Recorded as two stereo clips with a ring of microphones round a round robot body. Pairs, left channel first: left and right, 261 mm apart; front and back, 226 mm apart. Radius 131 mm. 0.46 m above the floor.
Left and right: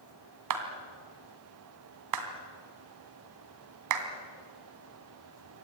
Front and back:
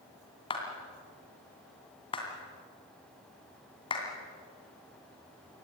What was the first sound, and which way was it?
A clap, 70° right.